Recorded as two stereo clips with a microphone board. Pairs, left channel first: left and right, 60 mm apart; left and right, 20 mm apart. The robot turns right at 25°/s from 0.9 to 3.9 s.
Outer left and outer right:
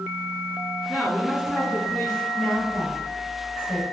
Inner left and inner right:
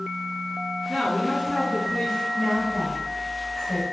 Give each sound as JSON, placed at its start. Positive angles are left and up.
{"t": 0.9, "sound": "a man speaking", "azimuth_deg": 160, "distance_m": 2.0}
{"t": 2.3, "sound": "a woman speaking", "side_deg": 10, "distance_m": 1.1}